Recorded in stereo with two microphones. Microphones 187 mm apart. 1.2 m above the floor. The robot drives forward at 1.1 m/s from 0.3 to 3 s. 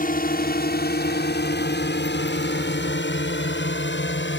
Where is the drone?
50° left (ahead or behind); by 4.4 s 75° left (ahead or behind).